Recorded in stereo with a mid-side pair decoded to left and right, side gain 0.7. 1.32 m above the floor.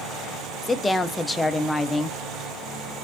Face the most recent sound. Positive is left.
turn(degrees=10)